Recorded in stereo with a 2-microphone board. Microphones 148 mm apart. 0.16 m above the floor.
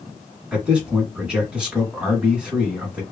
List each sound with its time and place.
0.5 s a man speaking: 5° right (ahead or behind), 1.4 m